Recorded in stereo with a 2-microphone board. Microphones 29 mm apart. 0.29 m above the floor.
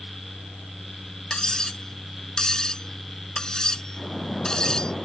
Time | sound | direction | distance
1.3 | cutlery clinking | 25° left (ahead or behind) | ?
4.0 | a splash | 20° left (ahead or behind) | ?